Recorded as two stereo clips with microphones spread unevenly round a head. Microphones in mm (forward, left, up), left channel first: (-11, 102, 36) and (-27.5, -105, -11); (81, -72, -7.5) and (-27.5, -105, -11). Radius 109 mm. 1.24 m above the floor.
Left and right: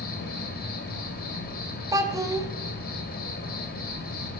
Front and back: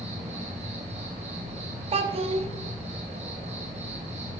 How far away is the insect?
About 1.5 m.